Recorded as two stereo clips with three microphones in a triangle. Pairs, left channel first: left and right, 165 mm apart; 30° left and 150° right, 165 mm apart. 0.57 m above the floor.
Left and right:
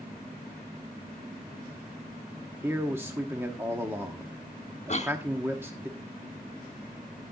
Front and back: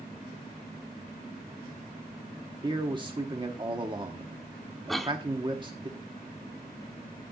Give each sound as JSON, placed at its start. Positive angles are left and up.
{"t": 2.6, "sound": "a man speaking", "azimuth_deg": -150, "distance_m": 1.0}
{"t": 4.9, "sound": "a cough", "azimuth_deg": 120, "distance_m": 1.1}